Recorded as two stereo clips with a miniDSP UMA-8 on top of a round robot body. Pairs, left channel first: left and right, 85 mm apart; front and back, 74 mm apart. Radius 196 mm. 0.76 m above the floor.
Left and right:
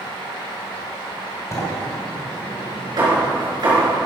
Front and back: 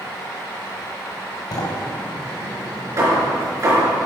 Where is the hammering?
130° right, 4.5 m.